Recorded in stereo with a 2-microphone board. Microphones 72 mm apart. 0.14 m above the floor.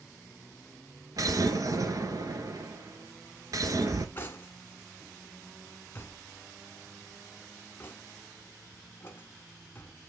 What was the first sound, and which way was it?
An explosion, 60° right (ahead or behind).